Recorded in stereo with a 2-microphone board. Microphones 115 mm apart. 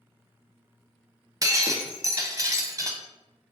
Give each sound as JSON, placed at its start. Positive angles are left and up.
{"t": 1.4, "sound": "breaking glass", "side_deg": -30, "distance_m": 0.5}